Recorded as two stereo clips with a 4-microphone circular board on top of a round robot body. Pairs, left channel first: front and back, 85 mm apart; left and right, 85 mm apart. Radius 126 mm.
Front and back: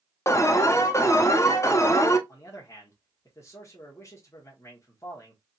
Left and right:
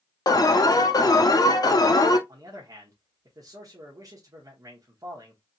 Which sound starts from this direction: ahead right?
A man speaking, at 2.3 s.